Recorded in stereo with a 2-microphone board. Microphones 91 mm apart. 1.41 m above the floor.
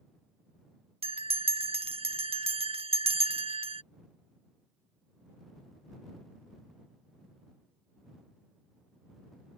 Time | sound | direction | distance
1.0 | a bell | 85° right | ?